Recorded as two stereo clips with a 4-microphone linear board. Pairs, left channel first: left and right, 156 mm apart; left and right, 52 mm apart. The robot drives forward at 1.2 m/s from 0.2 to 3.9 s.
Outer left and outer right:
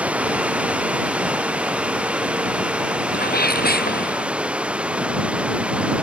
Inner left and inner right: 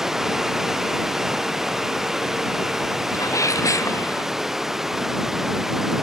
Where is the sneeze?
80° left; by 4.3 s 85° left.